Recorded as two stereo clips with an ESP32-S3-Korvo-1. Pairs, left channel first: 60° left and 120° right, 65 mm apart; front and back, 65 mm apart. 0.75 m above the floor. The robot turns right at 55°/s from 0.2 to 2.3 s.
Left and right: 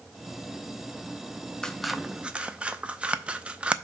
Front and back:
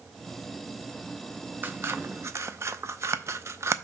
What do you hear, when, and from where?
1.6 s scissors: 140° left, 0.5 m; by 3.8 s 175° left, 0.5 m